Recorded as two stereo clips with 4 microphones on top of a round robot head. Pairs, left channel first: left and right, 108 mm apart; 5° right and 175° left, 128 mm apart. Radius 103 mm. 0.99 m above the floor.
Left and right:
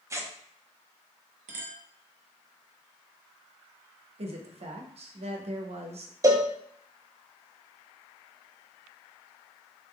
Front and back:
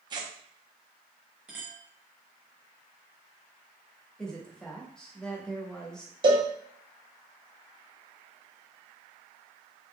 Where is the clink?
100° right, 0.8 m.